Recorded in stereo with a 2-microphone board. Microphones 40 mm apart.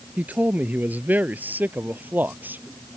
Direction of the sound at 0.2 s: 45° right (ahead or behind).